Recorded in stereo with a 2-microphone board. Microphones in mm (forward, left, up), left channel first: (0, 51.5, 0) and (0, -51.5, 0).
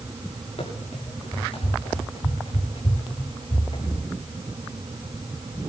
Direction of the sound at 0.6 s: 70° left (ahead or behind).